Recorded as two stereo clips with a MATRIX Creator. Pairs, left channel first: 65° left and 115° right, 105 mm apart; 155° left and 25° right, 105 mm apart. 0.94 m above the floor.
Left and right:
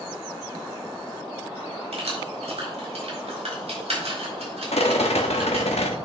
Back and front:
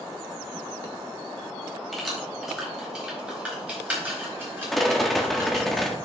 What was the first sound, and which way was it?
Keys jangling, 110° right.